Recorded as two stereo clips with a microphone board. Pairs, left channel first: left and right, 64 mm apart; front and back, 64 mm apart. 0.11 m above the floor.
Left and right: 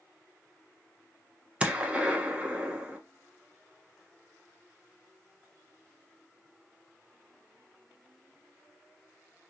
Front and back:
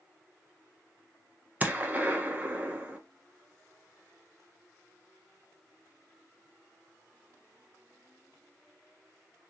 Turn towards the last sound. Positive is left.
turn(degrees=-145)